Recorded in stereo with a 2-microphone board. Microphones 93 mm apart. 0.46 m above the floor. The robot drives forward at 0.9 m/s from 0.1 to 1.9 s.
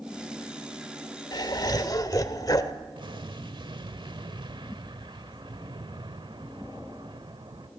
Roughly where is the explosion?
Right.